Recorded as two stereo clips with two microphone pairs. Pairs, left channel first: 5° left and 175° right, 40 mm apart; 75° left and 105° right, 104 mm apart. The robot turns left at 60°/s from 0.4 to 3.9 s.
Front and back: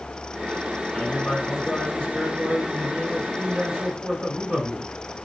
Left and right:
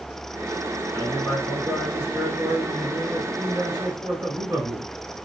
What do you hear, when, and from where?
0.9 s a man speaking: 50° left, 2.5 m; by 4.9 s 125° right, 2.5 m